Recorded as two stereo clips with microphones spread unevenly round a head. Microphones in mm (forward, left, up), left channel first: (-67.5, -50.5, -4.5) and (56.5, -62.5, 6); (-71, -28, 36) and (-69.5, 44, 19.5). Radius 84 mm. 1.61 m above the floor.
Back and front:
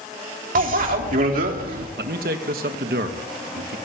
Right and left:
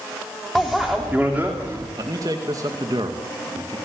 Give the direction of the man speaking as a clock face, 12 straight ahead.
11 o'clock.